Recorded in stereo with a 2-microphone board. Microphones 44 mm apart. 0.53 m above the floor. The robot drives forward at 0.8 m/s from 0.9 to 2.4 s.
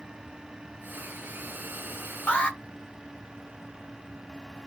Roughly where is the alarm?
Left.